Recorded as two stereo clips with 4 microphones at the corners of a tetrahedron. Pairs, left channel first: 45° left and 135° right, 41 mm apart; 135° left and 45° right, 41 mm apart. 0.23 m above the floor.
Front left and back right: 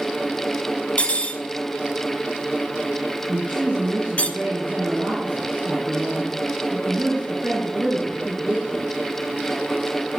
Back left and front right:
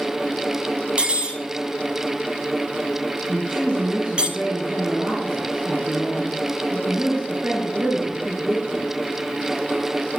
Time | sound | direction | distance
1.0 | cutlery clinking | 10° left | 0.9 m
3.3 | a woman speaking | 80° right | 2.5 m